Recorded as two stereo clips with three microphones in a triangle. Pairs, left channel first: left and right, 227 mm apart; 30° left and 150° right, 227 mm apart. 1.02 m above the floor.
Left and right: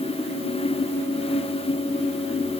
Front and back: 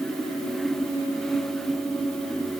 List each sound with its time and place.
Only background noise.